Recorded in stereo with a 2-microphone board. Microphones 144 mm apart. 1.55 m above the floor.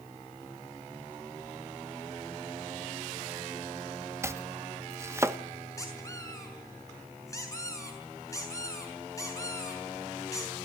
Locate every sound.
4.2 s chopping: 20° right (ahead or behind), 1.0 m
5.8 s a squeak: 20° left (ahead or behind), 6 m